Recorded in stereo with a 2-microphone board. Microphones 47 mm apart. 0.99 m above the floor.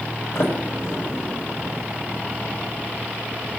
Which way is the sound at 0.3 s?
55° left (ahead or behind).